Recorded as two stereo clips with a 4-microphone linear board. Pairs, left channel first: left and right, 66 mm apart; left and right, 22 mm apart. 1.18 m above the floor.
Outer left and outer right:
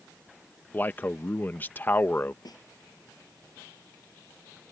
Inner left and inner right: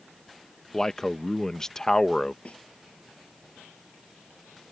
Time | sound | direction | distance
0.7 | a man speaking | 30° left (ahead or behind) | ?
2.5 | a snare drum | 85° left | ?